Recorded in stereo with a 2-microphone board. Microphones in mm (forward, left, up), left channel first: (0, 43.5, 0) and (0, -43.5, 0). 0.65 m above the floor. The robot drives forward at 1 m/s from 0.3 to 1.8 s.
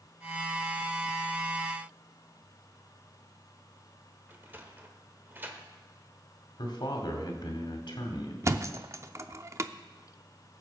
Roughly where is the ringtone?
No ringtone in this recording.